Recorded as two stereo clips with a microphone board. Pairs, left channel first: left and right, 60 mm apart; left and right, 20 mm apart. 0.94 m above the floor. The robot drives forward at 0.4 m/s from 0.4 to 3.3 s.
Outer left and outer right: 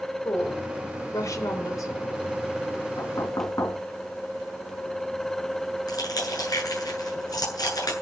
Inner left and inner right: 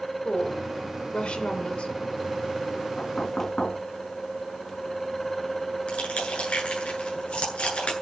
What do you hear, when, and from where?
0.2 s a woman speaking: 55° left (ahead or behind), 4 m; by 1.9 s 65° left (ahead or behind), 3.5 m
3.0 s knocking: 85° left, 6.5 m
5.9 s crushing: 90° left, 9 m